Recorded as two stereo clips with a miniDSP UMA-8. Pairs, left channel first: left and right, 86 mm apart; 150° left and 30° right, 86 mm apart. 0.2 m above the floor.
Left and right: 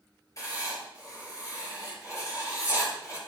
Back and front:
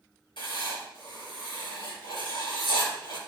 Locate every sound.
0.4 s writing: 140° left, 3.5 m